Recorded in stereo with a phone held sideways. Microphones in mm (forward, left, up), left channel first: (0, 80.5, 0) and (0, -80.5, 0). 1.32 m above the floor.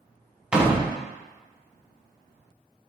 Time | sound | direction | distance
0.5 | a door slam | 5° right (ahead or behind) | 0.5 m